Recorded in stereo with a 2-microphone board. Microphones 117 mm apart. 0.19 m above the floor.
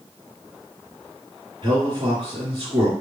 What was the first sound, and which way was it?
A man speaking, 40° right (ahead or behind).